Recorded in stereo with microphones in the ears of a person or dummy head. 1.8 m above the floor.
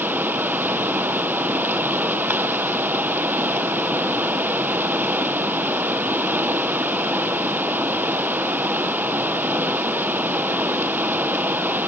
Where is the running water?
5° right (ahead or behind), 1.1 m.